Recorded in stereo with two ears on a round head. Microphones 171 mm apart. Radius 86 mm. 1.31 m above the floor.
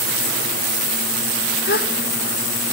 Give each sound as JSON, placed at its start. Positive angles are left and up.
{"t": 1.7, "sound": "a gasp", "side_deg": 55, "distance_m": 1.1}